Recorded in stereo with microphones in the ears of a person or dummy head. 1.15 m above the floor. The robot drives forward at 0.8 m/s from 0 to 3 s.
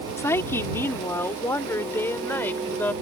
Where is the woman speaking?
5° left (ahead or behind).